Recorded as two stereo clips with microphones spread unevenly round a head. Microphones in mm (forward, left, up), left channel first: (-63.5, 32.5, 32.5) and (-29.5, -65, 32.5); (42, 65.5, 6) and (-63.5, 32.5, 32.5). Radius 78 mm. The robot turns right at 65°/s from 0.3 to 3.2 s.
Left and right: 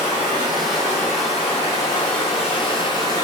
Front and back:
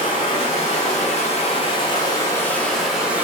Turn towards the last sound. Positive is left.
turn(degrees=145)